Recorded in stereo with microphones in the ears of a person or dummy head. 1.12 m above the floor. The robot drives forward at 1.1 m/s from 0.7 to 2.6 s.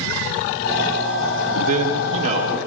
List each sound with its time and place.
1.6 s a man speaking: 40° right (ahead or behind), 3 m; by 2.6 s 30° right (ahead or behind), 3.5 m